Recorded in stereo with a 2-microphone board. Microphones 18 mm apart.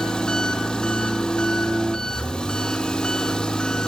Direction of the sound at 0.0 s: 40° left (ahead or behind).